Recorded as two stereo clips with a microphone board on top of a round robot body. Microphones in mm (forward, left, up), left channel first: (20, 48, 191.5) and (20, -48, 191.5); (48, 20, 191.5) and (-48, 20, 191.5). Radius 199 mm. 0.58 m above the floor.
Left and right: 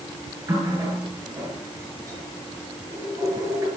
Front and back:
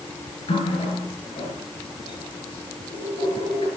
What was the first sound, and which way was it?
A running tap, 30° right.